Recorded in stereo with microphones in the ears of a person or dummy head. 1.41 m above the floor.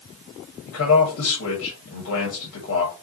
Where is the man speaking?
75° left (ahead or behind), 1.8 m.